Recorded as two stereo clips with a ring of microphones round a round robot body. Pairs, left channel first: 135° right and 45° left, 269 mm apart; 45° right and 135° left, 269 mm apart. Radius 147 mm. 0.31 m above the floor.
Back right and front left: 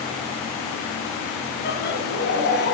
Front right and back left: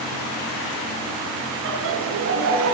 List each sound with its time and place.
1.6 s laughter: 175° left, 3 m